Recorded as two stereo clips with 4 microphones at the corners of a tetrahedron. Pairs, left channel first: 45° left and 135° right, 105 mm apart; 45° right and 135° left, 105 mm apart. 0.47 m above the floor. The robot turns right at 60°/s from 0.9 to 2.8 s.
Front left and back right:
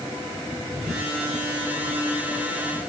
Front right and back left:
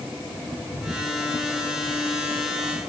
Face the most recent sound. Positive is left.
No sound to turn to.